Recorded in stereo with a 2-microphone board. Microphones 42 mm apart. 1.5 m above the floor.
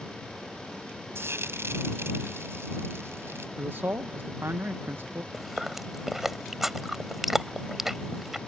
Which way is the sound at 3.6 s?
60° right (ahead or behind).